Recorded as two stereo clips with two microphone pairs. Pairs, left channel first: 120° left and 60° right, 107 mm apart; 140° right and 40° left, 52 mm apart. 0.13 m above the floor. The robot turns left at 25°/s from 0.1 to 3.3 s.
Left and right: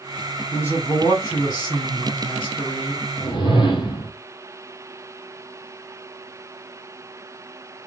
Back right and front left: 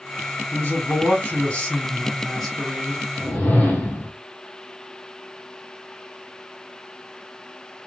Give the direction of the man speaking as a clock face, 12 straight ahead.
6 o'clock.